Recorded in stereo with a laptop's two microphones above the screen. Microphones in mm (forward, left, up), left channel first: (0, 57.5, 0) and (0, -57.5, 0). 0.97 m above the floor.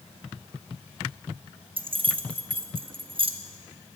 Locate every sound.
1.8 s keys jangling: 45° right (ahead or behind), 0.6 m